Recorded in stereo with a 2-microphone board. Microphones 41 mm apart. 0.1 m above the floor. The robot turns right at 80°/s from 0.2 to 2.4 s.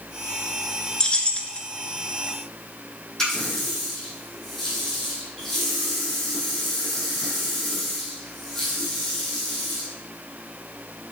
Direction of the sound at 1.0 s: 20° left (ahead or behind).